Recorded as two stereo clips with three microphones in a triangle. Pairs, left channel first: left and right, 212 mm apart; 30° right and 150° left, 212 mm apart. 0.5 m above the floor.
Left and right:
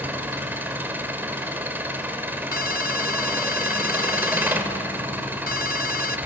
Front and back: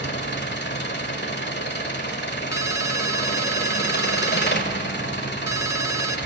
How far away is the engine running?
About 1.6 m.